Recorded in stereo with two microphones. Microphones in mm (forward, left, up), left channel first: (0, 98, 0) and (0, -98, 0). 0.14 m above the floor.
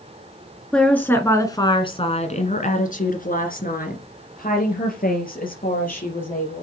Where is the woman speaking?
5° left (ahead or behind), 2 m; by 6.6 s 45° left (ahead or behind), 5 m.